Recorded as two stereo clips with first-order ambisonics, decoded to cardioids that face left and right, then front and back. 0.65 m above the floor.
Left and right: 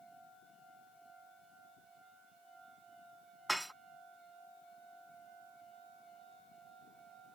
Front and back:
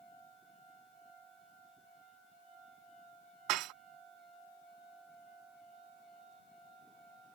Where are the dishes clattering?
175° right.